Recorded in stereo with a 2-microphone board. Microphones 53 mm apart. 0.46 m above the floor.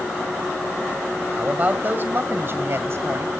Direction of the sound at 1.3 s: 30° right (ahead or behind).